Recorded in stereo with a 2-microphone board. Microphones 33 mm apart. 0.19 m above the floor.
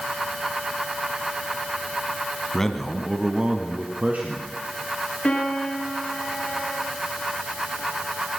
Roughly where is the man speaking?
Centre.